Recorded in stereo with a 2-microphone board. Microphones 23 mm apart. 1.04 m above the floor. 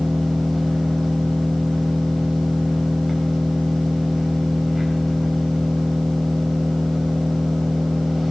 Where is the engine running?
Centre (ahead or behind), 4.5 m.